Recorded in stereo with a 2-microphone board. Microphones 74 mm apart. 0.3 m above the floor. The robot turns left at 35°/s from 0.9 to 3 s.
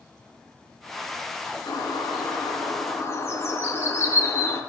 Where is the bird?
85° left, 3 m; by 4.6 s 35° left, 3 m.